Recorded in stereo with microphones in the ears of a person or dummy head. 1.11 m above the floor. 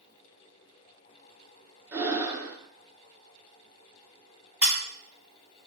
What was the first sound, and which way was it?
Breathing, 15° right (ahead or behind).